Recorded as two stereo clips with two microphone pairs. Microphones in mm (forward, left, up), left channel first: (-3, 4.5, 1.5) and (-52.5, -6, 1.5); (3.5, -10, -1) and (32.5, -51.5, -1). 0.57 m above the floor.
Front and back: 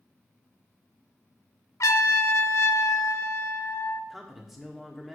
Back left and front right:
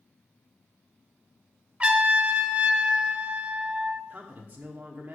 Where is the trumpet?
10° left, 0.7 m.